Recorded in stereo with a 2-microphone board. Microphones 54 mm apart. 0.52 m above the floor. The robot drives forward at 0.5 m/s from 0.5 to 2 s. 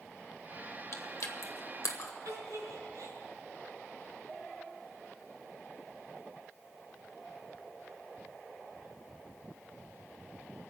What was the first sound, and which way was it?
Chewing, 60° left (ahead or behind).